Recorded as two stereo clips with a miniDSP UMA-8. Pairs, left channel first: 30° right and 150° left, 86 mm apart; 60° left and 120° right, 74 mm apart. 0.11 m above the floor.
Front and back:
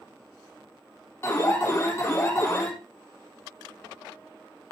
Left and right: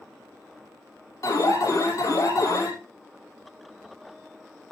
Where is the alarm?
30° left, 3.5 m.